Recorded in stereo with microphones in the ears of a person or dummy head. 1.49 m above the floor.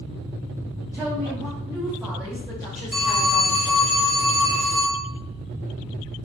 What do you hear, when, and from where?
0.9 s a woman speaking: 15° right (ahead or behind), 0.7 m; by 3.8 s centre (ahead or behind), 2 m
2.9 s a phone ringing: centre (ahead or behind), 1.4 m